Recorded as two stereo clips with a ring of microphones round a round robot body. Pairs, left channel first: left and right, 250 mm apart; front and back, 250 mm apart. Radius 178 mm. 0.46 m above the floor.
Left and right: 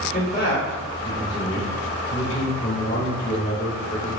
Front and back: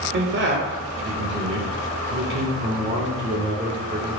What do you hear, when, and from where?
0.1 s a man speaking: 155° left, 1.3 m